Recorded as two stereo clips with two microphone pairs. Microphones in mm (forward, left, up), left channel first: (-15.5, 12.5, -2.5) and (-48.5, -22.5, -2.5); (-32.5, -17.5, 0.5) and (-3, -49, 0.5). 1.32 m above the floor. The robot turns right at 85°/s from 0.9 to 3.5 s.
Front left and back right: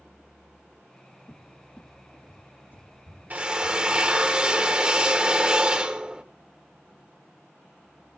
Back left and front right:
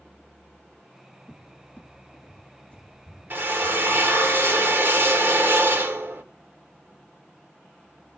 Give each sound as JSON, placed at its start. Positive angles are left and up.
{"t": 1.3, "sound": "a cupboard door", "azimuth_deg": 70, "distance_m": 1.3}
{"t": 3.3, "sound": "a drill", "azimuth_deg": -85, "distance_m": 1.3}